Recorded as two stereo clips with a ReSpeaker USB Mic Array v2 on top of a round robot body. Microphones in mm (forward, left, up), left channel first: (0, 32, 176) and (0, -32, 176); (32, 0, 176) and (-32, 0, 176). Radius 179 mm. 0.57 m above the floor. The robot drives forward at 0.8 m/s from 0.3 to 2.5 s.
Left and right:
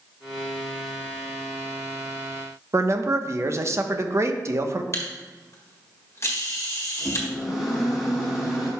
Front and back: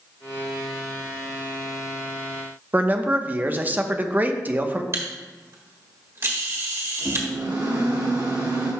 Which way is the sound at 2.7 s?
120° right.